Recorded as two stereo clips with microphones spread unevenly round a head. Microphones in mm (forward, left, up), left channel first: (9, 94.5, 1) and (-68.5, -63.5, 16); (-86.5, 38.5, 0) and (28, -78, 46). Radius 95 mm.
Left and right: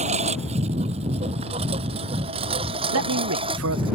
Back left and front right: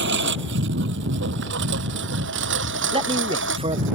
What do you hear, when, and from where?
0.0 s a lawn mower: 55° right; by 4.0 s 50° right
2.9 s a man speaking: 110° right